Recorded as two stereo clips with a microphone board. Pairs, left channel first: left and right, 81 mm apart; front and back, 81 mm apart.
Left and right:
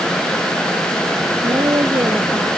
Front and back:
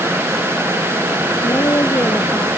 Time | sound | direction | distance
1.4 | a woman speaking | 50° right | ?